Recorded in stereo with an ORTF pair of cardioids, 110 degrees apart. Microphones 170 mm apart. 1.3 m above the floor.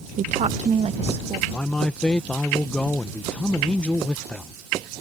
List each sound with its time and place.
0.2 s a woman speaking: 50° right; by 1.4 s 35° right
1.5 s a man speaking: 5° left